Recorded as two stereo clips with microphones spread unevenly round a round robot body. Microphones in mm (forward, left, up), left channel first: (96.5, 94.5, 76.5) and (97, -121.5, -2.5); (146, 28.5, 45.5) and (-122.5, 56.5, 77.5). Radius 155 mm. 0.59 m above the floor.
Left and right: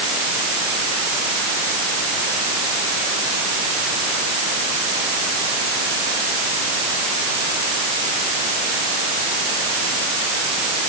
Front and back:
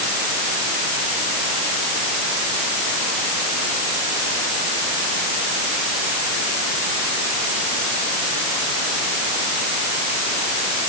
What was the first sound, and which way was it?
Only background noise.